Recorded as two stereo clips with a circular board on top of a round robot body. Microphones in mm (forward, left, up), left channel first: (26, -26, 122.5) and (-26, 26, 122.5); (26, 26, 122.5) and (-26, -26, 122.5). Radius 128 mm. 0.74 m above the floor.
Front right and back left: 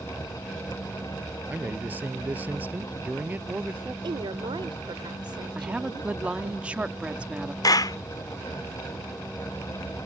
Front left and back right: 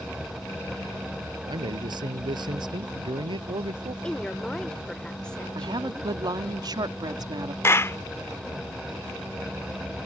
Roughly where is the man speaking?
Behind.